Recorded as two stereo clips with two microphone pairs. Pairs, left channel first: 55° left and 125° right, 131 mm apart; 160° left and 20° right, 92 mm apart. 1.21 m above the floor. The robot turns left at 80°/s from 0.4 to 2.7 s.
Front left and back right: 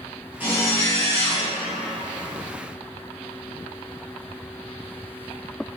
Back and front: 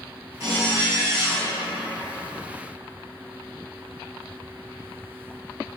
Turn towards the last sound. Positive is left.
turn(degrees=120)